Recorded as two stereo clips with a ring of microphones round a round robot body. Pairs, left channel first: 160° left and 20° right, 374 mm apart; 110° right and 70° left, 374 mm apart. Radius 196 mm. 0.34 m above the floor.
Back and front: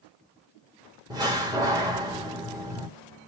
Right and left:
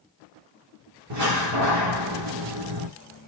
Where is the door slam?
55° left, 1.2 m.